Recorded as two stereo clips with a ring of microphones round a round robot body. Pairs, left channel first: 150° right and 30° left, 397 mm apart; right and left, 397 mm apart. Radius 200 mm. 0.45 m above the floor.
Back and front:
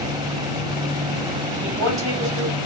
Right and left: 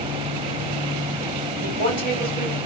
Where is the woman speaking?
85° left, 2 m.